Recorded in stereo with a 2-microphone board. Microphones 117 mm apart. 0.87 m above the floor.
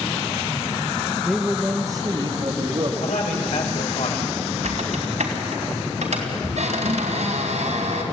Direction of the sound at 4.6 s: 85° right.